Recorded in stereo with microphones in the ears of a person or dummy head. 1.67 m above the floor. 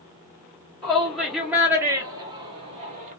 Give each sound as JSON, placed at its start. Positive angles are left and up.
{"t": 0.8, "sound": "a shout", "side_deg": 5, "distance_m": 1.6}